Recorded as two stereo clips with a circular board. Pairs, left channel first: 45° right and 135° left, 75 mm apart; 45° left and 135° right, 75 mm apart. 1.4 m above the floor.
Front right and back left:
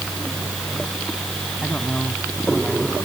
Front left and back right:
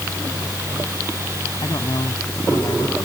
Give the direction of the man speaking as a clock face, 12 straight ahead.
11 o'clock.